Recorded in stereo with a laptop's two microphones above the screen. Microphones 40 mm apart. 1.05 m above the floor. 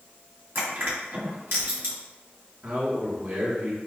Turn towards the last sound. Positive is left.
turn(degrees=-55)  # may be behind; listen again after turning